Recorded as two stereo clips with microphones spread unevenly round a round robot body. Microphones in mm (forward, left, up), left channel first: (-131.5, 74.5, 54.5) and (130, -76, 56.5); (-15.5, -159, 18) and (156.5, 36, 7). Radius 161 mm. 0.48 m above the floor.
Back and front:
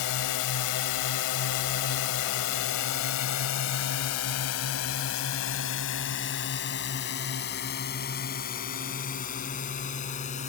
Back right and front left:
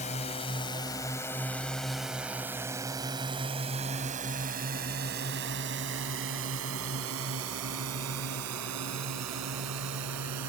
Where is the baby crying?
No baby crying in this recording.